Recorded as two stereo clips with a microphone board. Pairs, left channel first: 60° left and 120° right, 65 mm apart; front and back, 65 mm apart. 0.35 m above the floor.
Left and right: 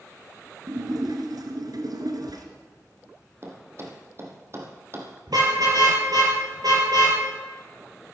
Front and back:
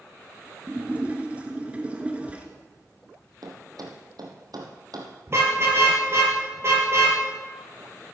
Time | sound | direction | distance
0.7 | a splash | 110° right | 2 m
3.4 | a thud | 170° right | 2.5 m
5.3 | a car horn | 130° right | 4.5 m